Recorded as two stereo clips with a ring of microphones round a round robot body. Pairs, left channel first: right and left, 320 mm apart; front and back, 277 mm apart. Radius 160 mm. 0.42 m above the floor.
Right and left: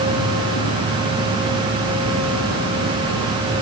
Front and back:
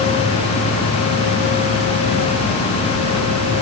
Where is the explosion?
No explosion in this recording.